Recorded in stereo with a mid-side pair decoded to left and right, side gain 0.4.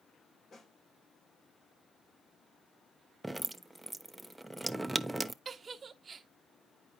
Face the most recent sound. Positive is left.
turn(degrees=-45)